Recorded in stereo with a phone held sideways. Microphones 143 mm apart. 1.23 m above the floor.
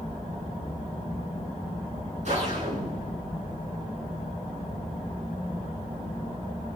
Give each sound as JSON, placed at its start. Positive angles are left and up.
{"t": 2.2, "sound": "a whoosh", "side_deg": -50, "distance_m": 8.0}